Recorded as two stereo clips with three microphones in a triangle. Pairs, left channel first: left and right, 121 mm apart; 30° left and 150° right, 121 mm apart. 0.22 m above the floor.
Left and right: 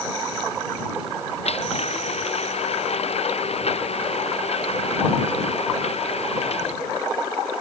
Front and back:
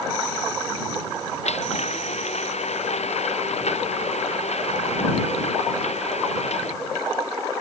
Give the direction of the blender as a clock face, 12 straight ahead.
10 o'clock.